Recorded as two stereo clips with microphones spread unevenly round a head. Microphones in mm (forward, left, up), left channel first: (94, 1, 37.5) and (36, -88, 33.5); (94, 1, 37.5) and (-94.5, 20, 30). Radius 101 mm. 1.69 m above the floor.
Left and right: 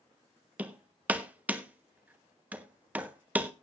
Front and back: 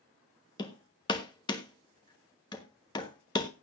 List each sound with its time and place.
0.6 s hammering: 55° right, 1.1 m